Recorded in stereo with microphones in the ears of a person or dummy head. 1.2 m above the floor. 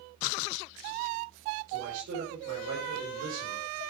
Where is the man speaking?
75° right (ahead or behind), 6 m.